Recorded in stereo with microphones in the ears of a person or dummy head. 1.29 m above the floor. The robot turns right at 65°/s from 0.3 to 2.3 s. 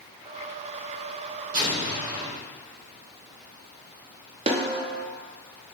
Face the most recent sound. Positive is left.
turn(degrees=-35)  # may be behind; listen again after turning